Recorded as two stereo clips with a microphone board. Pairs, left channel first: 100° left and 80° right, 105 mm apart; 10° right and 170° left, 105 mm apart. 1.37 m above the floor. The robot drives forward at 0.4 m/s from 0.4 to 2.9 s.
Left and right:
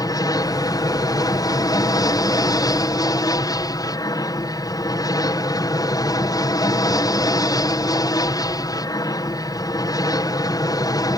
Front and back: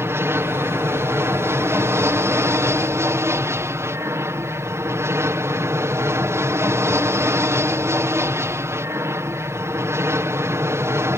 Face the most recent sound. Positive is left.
turn(degrees=120)